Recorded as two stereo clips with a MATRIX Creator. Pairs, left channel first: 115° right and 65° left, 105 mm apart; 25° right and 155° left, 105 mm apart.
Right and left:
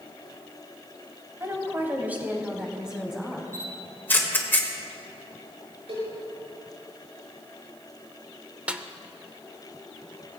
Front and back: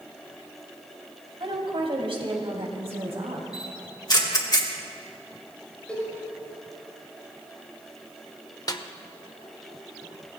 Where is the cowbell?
55° left, 5.5 m.